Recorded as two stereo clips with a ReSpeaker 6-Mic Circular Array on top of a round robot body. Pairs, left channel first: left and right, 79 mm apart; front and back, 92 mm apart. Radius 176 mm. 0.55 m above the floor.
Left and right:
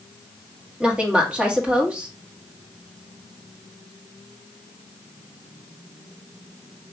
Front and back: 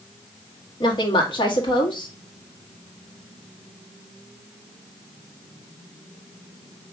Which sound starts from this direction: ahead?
A woman speaking, at 0.8 s.